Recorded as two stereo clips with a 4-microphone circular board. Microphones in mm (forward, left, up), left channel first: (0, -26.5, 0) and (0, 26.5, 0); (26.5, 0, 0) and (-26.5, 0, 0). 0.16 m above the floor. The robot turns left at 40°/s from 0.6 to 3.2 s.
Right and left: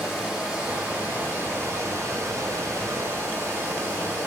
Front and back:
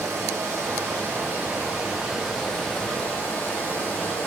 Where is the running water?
170° left, 1.6 m; by 4.3 s 65° left, 1.6 m.